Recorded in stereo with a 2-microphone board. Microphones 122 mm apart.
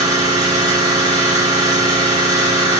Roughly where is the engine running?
Right.